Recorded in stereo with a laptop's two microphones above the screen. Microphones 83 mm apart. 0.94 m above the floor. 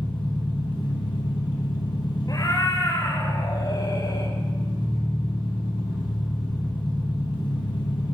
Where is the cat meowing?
50° left (ahead or behind), 1.7 m.